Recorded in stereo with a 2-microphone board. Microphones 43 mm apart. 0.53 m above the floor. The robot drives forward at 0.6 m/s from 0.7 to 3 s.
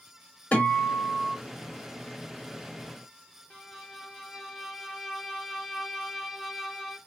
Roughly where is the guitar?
Left.